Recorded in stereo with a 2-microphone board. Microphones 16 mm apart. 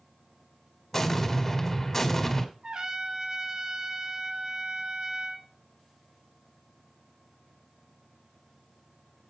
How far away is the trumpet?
About 1.9 m.